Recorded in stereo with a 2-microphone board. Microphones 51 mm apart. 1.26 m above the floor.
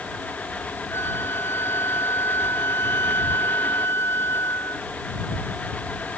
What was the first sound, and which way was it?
A flute, 50° left (ahead or behind).